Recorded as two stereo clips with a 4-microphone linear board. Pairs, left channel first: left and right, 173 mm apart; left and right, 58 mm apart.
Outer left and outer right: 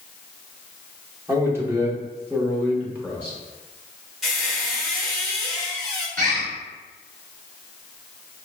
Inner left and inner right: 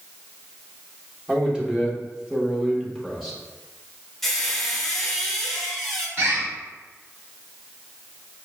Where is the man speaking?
15° right (ahead or behind), 0.9 m; by 3.4 s 10° right (ahead or behind), 1.3 m.